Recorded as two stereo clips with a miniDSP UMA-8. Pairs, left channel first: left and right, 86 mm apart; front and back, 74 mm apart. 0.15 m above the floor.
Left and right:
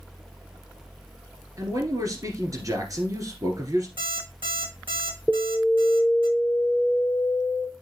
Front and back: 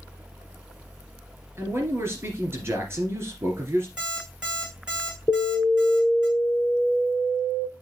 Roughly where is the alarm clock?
Right.